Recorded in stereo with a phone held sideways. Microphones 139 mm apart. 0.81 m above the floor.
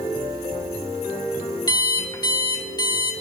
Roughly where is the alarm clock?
Left.